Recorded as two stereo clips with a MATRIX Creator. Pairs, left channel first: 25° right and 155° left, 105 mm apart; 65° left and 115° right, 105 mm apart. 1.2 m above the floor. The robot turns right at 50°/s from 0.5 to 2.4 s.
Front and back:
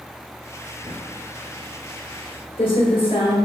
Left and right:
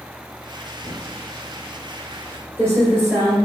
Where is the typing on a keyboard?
130° right, 1.5 m; by 3.4 s 50° right, 1.5 m.